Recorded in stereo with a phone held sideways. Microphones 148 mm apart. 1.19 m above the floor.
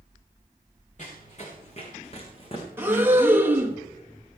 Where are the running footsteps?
55° left (ahead or behind), 5 m; by 2.7 s 40° left (ahead or behind), 4.5 m.